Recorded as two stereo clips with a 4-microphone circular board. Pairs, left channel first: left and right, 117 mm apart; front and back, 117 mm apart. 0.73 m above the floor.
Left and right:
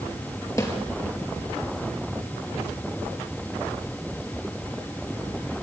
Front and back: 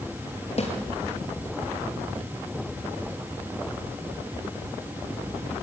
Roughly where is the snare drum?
Ahead left.